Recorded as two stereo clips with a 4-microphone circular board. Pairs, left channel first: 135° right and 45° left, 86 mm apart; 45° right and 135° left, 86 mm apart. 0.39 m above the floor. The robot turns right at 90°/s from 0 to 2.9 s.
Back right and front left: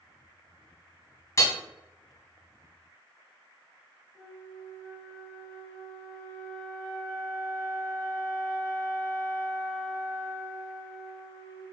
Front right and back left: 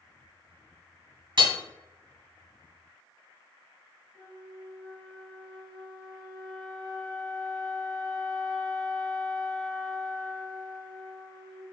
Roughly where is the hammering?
Behind.